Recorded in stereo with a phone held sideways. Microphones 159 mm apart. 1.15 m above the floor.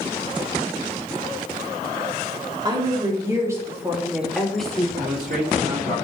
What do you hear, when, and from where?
2.6 s a woman speaking: 25° right (ahead or behind), 3 m; by 4.9 s 5° left (ahead or behind), 2 m
5.0 s a man speaking: 70° right (ahead or behind), 3.5 m